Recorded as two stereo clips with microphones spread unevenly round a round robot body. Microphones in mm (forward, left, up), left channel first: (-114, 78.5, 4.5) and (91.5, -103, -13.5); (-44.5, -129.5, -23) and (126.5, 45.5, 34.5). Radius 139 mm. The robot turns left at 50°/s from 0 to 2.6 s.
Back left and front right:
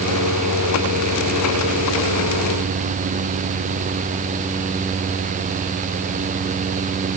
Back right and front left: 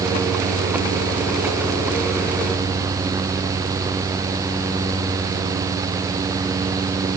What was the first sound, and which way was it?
Only background noise.